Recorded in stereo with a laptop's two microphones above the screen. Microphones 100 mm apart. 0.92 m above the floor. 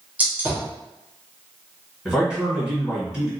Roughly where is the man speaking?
Centre.